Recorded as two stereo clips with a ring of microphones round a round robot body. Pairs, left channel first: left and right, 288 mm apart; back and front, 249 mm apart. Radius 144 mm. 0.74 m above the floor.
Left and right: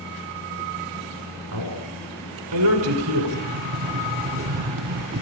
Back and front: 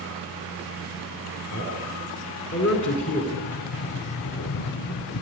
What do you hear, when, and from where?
1.5 s a man speaking: 130° right, 6 m
3.3 s a sliding door: 145° right, 0.7 m